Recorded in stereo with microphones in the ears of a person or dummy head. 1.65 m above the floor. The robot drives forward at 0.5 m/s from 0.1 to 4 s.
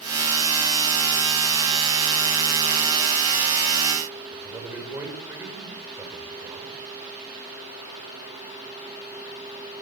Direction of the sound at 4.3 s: 10° right (ahead or behind).